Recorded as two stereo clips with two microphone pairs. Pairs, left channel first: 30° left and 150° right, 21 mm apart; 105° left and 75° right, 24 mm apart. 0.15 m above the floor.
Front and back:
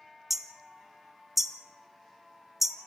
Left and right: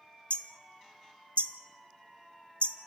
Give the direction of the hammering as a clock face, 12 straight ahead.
8 o'clock.